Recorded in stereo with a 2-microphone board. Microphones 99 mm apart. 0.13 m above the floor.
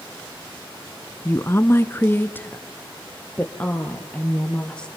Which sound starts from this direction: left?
A woman speaking, at 1.2 s.